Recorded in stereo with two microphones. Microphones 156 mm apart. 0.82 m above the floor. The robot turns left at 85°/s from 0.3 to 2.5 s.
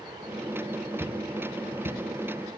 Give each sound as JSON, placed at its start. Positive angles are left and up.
{"t": 1.0, "sound": "footsteps", "side_deg": -15, "distance_m": 3.0}